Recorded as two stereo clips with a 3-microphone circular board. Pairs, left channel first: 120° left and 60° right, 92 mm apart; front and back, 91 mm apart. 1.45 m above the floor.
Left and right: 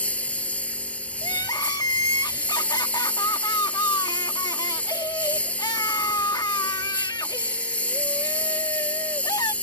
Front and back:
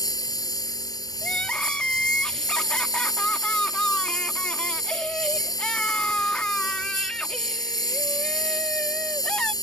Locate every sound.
0.0 s a lawn mower: 45° left
1.2 s crying: 75° left